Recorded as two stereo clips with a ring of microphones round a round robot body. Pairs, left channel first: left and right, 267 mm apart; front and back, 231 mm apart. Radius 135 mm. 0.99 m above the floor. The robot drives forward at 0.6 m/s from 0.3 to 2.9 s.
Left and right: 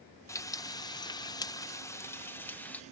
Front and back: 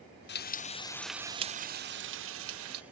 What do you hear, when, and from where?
0.3 s frying: 15° left; by 2.8 s 175° left